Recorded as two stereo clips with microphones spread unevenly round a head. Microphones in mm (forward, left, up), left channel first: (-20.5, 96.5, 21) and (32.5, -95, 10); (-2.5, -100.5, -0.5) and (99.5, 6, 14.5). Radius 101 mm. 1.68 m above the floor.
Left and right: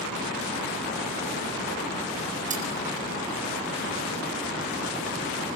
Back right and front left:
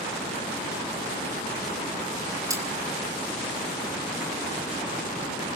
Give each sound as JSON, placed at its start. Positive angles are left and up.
{"t": 2.5, "sound": "cutlery clinking", "azimuth_deg": -20, "distance_m": 5.0}